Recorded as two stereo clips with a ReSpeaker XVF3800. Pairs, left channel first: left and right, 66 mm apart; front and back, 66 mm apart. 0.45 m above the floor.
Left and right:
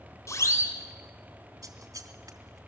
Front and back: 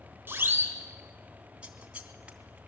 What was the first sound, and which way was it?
A siren, 125° left.